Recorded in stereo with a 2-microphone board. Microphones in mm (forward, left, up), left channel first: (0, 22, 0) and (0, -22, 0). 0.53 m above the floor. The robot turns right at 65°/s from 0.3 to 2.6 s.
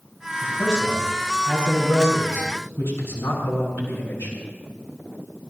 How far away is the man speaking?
About 6.5 m.